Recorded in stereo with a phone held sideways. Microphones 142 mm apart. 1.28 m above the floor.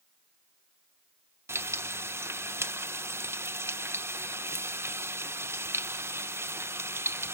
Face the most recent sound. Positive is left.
turn(degrees=-20)  # may be behind; listen again after turning